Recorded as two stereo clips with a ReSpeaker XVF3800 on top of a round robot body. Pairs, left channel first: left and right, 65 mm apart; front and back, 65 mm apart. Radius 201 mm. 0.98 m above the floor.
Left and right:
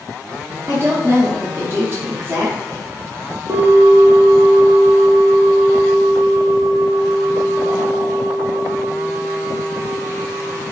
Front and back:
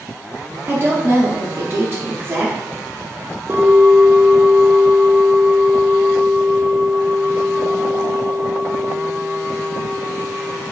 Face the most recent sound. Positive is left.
turn(degrees=-120)